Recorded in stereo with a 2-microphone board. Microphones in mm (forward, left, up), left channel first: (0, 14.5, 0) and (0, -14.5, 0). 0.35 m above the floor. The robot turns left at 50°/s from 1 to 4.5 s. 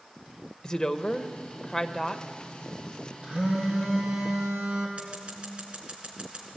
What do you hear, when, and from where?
0.6 s a woman speaking: 80° left, 0.9 m; by 2.2 s 15° left, 0.9 m
3.2 s a phone buzzing: 35° right, 5 m; by 4.9 s 100° right, 5 m
5.0 s scissors: 45° right (ahead or behind), 3.5 m